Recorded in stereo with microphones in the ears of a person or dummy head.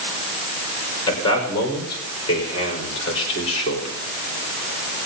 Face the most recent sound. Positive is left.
turn(degrees=35)  # may be behind; listen again after turning